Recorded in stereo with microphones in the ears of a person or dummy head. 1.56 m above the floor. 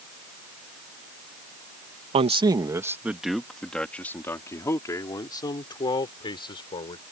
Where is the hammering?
I don't hear hammering.